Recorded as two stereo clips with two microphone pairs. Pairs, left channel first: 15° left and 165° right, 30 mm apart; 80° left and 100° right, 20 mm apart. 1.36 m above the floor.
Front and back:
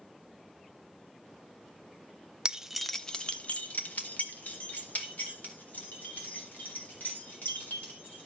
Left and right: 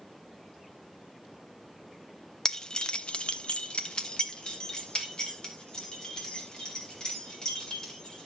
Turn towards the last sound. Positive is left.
turn(degrees=25)